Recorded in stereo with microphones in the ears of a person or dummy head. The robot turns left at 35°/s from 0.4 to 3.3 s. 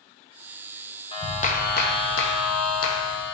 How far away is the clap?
About 1.1 m.